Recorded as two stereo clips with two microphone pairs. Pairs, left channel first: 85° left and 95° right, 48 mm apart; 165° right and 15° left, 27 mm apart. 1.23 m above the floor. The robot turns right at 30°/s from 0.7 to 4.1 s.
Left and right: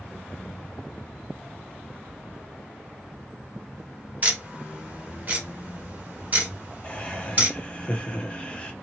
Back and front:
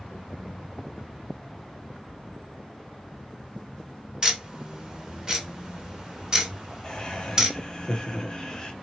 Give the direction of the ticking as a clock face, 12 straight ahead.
2 o'clock.